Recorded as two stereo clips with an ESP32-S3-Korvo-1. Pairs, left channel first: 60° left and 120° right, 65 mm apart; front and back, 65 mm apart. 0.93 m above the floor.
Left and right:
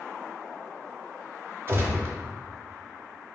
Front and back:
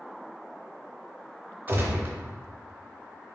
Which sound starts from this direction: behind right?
A gunshot, at 1.7 s.